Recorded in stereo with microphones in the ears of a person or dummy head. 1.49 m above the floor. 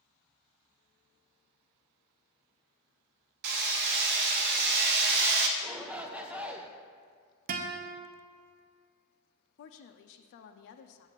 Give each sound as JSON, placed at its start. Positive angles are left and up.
{"t": 3.4, "sound": "hammering", "side_deg": -50, "distance_m": 0.7}
{"t": 5.6, "sound": "a shout", "side_deg": -5, "distance_m": 0.8}
{"t": 7.5, "sound": "a guitar", "side_deg": -45, "distance_m": 0.6}
{"t": 9.6, "sound": "a woman speaking", "side_deg": 65, "distance_m": 0.5}